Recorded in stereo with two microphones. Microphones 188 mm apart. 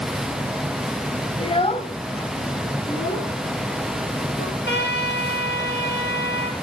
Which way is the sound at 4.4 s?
70° left (ahead or behind).